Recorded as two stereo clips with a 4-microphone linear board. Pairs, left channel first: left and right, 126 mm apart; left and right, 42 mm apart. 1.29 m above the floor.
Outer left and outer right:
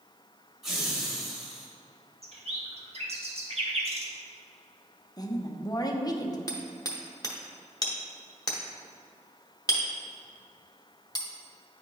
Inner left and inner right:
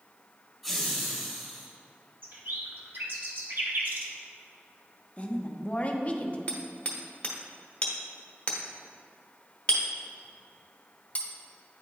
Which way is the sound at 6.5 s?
30° left (ahead or behind).